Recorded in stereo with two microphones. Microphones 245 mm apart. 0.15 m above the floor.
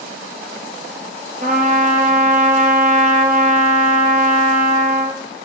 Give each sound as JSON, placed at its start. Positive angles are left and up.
{"t": 1.4, "sound": "a trumpet", "side_deg": -35, "distance_m": 2.5}